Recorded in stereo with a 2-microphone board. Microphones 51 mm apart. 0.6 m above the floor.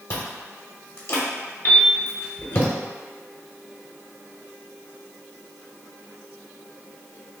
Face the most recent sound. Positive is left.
turn(degrees=35)  # may be behind; listen again after turning